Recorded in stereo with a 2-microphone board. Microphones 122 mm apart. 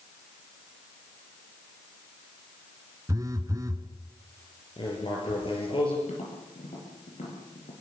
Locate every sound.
3.1 s a phone buzzing: 30° right (ahead or behind), 1.3 m
4.8 s writing: 45° left (ahead or behind), 6.5 m
6.1 s tapping: 65° left (ahead or behind), 7 m